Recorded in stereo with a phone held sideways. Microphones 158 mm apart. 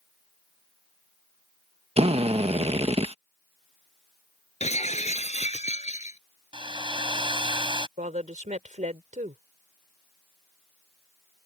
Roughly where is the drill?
Right.